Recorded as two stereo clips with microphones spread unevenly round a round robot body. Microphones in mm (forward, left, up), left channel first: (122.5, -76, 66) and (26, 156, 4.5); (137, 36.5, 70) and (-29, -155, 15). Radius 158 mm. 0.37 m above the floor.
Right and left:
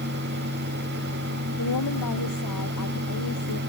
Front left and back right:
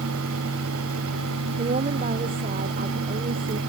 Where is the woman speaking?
75° right.